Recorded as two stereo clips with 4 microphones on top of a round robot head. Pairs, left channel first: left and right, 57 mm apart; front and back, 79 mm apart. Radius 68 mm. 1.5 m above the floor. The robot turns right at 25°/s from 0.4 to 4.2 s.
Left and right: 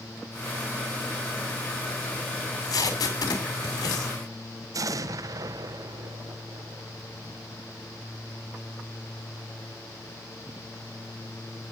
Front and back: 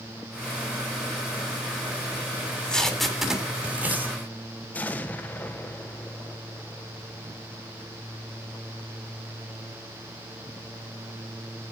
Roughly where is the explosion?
Right.